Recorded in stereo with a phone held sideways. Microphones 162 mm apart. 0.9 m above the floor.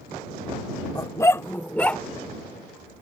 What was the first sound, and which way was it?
A dog barking, 20° left (ahead or behind).